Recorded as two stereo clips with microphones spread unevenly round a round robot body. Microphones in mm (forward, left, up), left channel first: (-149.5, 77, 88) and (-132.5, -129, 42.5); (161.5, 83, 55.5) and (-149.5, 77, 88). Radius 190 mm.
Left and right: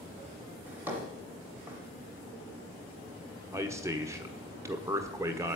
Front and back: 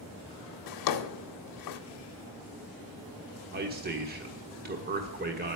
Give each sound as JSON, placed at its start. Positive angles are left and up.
{"t": 0.7, "sound": "a drawer", "azimuth_deg": -5, "distance_m": 0.7}
{"t": 3.5, "sound": "a man speaking", "azimuth_deg": -130, "distance_m": 1.4}